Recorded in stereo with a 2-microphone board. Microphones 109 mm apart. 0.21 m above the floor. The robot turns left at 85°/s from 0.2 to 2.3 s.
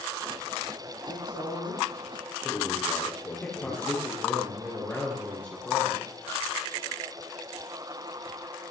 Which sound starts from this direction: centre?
A man speaking, at 3.4 s.